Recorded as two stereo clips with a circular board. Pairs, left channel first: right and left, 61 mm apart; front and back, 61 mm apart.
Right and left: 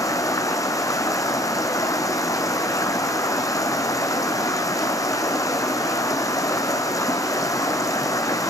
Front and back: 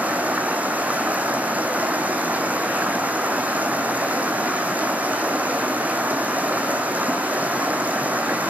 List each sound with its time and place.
0.0 s running water: 115° right, 1.8 m